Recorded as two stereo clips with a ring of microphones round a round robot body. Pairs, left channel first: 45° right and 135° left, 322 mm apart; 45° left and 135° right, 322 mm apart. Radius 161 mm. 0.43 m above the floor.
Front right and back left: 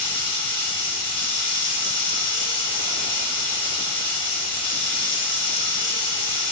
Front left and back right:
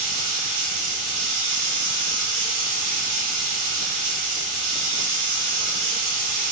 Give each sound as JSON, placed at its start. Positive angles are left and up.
{"t": 0.0, "sound": "running water", "azimuth_deg": -120, "distance_m": 2.0}